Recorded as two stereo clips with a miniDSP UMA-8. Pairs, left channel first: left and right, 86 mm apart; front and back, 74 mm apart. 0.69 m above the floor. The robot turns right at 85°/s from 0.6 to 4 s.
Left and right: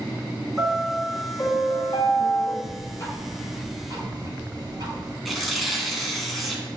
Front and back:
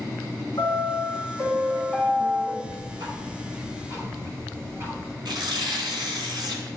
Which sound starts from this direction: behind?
Tearing paper, at 5.2 s.